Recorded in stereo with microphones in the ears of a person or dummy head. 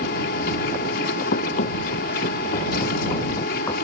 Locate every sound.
0.0 s a machine running: 60° left (ahead or behind)
1.3 s running footsteps: 55° left (ahead or behind); by 3.7 s 30° left (ahead or behind)